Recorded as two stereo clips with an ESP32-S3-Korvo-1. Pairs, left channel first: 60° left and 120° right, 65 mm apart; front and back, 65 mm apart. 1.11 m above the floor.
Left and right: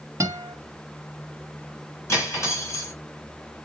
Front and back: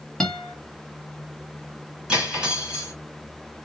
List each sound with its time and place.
0.2 s a guitar: 80° right, 0.9 m
2.1 s cutlery clinking: 105° left, 2 m